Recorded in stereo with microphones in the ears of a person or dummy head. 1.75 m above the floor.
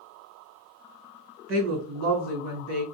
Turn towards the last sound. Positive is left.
turn(degrees=-50)  # may be behind; listen again after turning